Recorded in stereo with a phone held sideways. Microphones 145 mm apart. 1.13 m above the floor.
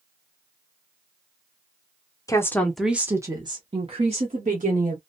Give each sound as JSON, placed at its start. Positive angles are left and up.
{"t": 2.3, "sound": "a woman speaking", "side_deg": 25, "distance_m": 0.7}